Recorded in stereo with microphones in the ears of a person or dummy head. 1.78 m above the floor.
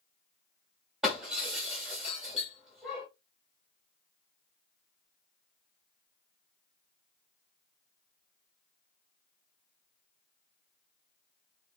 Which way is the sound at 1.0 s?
5° right (ahead or behind).